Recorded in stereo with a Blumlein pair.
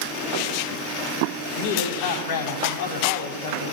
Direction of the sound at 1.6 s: 50° left.